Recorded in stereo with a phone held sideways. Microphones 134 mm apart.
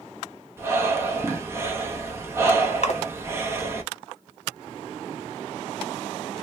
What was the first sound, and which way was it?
Breathing, 20° right (ahead or behind).